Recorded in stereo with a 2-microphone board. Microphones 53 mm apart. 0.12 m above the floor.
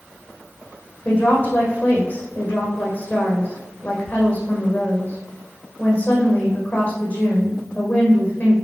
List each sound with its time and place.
1.1 s a woman speaking: 30° left (ahead or behind), 4.5 m